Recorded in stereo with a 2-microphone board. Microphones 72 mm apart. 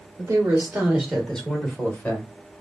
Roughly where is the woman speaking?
Right.